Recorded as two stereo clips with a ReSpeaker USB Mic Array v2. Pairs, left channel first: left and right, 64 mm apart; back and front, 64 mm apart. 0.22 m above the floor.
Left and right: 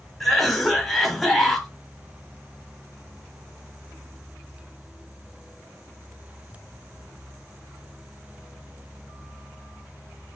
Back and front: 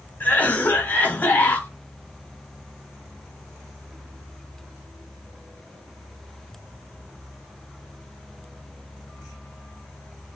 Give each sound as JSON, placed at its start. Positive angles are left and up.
{"t": 0.2, "sound": "a cough", "azimuth_deg": 175, "distance_m": 1.1}